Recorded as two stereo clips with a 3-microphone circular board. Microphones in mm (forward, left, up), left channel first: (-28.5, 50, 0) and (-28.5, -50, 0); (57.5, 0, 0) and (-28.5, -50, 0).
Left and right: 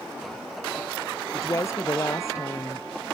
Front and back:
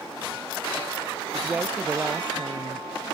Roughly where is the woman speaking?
Behind left.